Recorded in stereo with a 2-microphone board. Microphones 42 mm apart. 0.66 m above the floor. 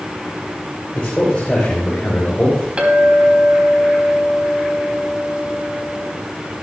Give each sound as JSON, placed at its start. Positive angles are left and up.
{"t": 0.9, "sound": "a man speaking", "side_deg": 30, "distance_m": 3.0}
{"t": 2.8, "sound": "a clink", "side_deg": -30, "distance_m": 3.5}